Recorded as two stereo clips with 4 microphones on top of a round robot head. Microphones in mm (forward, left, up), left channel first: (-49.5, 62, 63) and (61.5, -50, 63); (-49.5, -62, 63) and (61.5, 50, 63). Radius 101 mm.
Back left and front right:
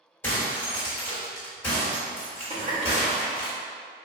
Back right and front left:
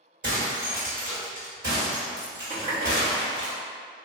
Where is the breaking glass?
65° left, 1.7 m.